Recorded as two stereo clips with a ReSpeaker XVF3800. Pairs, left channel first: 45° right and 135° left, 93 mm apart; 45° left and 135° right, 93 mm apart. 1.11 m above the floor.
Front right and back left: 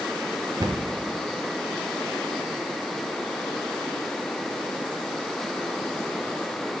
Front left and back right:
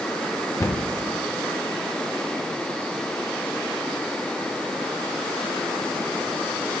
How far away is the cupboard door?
About 0.7 m.